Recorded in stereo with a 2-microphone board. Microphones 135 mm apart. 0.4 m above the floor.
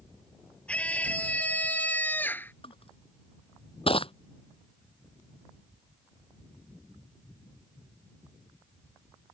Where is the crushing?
45° left (ahead or behind).